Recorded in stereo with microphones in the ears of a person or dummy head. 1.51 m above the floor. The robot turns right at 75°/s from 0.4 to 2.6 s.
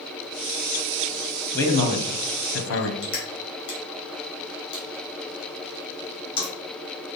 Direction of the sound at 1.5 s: 15° left.